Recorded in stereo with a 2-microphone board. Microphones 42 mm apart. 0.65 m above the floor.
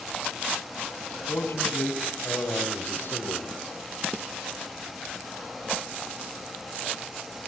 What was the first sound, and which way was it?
A man speaking, 80° left.